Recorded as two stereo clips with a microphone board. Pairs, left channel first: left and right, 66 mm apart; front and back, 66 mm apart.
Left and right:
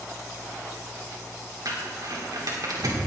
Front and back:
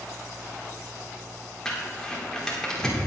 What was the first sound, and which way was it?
Crumpling, 80° right.